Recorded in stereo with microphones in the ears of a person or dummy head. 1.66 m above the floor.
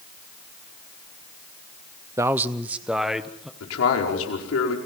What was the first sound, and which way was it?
A man speaking, 15° right (ahead or behind).